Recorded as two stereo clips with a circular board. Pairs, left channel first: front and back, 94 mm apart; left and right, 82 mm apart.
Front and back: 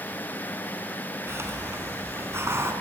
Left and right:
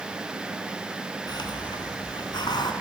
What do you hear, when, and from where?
1.3 s a hiss: 120° left, 3 m